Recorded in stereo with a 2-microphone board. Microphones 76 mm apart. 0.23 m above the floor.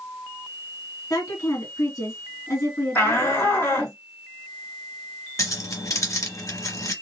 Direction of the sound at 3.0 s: 35° left (ahead or behind).